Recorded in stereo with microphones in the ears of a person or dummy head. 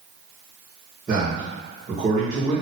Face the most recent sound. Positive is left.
turn(degrees=-25)  # may be behind; listen again after turning